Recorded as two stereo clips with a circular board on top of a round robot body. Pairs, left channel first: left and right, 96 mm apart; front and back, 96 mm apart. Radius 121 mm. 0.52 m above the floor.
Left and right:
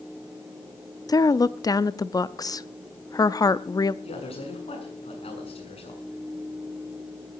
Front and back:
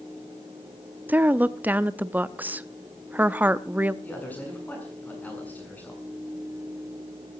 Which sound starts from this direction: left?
A man speaking, at 4.0 s.